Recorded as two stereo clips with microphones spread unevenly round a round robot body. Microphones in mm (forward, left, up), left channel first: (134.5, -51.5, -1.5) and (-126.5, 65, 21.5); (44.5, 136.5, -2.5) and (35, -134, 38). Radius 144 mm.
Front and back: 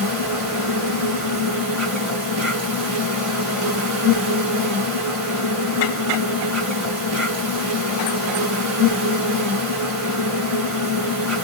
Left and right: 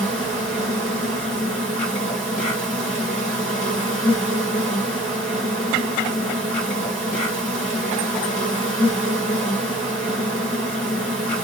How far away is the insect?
About 2.5 m.